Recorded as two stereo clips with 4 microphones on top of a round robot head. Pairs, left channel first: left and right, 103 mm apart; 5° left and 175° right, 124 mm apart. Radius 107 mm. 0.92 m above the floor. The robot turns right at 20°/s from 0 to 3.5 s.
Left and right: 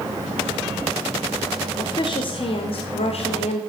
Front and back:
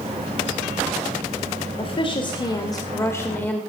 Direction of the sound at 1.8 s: 45° left.